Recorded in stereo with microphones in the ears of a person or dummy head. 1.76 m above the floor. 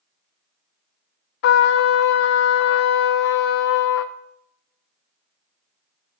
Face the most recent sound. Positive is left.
turn(degrees=65)  # may be behind; listen again after turning